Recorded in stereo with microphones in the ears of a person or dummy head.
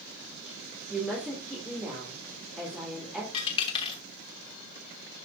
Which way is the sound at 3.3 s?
25° left (ahead or behind).